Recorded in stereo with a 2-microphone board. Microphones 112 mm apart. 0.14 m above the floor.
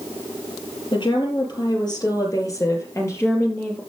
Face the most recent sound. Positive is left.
turn(degrees=15)  # may be behind; listen again after turning